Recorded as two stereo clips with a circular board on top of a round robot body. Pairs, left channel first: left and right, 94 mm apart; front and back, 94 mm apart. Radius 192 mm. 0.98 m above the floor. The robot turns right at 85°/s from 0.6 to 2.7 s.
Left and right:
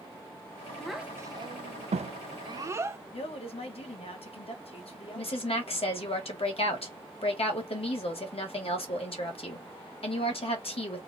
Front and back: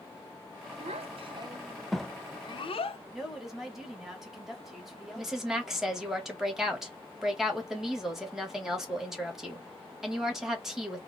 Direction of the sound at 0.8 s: 170° left.